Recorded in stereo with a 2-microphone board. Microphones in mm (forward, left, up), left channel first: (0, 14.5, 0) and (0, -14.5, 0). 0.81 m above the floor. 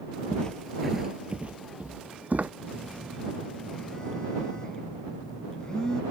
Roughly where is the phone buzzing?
Left.